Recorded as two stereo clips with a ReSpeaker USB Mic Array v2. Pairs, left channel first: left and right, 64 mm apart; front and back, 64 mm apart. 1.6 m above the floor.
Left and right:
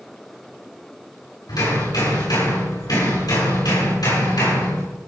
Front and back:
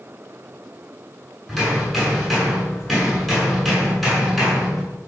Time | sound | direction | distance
1.5 | hammering | 90° left | 8.5 m